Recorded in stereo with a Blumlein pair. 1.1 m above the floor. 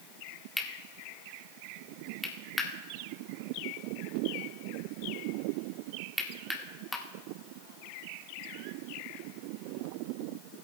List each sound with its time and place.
0.6 s cutlery clinking: 5° left, 1.3 m